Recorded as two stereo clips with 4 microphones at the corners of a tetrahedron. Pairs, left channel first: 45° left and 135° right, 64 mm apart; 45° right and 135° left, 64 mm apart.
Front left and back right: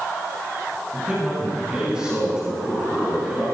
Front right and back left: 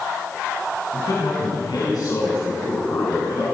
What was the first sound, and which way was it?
A man speaking, 65° right.